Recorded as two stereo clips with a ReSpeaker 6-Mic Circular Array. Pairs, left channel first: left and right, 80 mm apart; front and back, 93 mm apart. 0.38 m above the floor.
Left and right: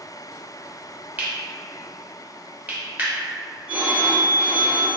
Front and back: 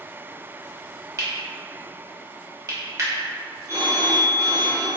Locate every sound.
1.2 s cutlery clinking: 150° right, 0.7 m
3.7 s a phone ringing: 150° right, 0.7 m